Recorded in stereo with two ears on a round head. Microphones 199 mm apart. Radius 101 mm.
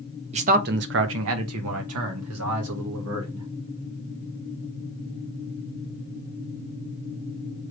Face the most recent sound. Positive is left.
turn(degrees=-70)  # may be behind; listen again after turning